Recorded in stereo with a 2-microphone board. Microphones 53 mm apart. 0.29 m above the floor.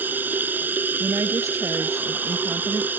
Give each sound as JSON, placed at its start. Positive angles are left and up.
{"t": 0.0, "sound": "running water", "side_deg": -35}
{"t": 1.0, "sound": "a woman speaking", "side_deg": -75}